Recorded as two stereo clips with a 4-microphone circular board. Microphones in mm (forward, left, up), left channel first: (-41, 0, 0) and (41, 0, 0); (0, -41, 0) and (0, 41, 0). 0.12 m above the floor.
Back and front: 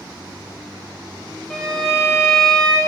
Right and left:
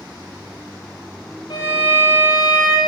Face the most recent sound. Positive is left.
turn(degrees=-90)